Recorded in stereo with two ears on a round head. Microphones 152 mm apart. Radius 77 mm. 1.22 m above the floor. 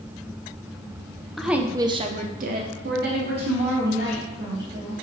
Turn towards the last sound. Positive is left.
turn(degrees=-60)  # may be behind; listen again after turning